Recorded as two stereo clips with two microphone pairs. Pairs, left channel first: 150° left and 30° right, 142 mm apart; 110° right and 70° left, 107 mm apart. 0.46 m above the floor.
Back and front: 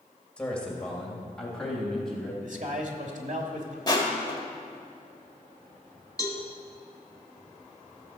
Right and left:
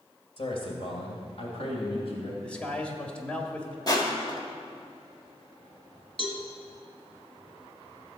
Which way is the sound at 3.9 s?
155° right.